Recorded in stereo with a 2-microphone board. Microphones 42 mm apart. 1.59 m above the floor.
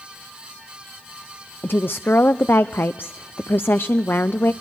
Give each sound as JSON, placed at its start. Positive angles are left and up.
{"t": 1.6, "sound": "a woman speaking", "side_deg": 60, "distance_m": 0.5}